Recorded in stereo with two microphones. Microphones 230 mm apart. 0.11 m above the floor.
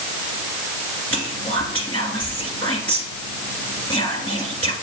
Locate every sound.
1.1 s whispering: 10° left (ahead or behind), 1.9 m